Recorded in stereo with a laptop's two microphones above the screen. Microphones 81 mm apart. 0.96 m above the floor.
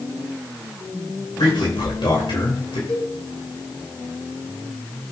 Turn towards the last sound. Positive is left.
turn(degrees=20)  # may be behind; listen again after turning